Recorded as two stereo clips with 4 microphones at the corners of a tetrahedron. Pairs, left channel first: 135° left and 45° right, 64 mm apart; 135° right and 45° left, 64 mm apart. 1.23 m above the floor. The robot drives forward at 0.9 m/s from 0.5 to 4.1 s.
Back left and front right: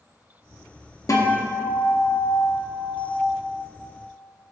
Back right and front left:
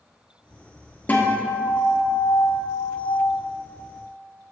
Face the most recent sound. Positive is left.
turn(degrees=175)